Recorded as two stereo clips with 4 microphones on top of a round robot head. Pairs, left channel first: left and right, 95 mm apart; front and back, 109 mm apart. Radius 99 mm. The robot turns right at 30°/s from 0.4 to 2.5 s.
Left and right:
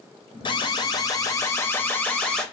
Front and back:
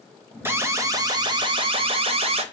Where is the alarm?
115° left, 0.8 m; by 2.4 s 175° left, 0.8 m.